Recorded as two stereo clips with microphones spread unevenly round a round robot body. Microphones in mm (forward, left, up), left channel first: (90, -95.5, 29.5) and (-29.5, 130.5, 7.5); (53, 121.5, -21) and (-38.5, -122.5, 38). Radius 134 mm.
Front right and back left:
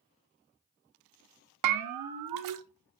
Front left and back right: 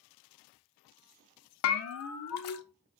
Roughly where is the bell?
Left.